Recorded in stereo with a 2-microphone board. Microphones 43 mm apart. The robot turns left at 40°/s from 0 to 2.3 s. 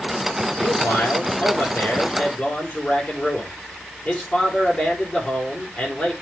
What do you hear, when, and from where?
0.6 s a man speaking: 100° left, 4.5 m; by 6.1 s 30° left, 4.5 m